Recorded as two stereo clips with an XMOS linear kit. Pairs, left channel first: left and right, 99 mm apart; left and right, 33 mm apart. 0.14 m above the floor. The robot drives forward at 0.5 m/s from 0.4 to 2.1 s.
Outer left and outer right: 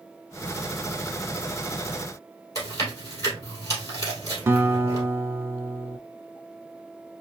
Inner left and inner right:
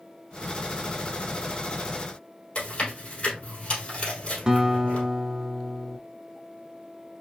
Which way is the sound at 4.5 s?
25° right (ahead or behind).